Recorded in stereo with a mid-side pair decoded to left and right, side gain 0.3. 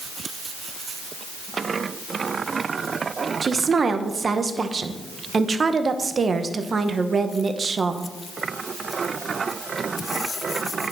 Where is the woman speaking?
50° right, 1.0 m.